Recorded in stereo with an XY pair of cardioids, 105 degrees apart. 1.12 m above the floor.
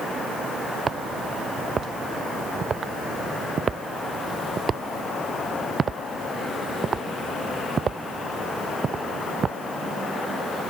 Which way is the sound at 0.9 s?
40° right.